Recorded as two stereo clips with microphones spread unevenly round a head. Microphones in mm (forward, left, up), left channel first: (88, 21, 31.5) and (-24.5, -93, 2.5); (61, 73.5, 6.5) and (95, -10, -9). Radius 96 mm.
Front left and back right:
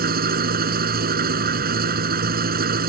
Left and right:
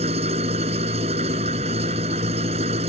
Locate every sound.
0.0 s an engine running: 105° right